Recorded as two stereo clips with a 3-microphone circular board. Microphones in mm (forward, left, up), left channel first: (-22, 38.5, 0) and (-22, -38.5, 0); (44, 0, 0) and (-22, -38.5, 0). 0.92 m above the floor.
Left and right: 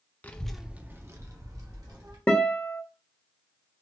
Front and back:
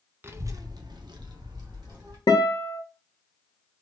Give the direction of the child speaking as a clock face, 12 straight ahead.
7 o'clock.